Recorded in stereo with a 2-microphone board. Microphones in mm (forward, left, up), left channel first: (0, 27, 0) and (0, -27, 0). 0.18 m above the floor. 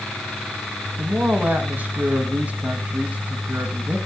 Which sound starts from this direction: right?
A man speaking, at 1.0 s.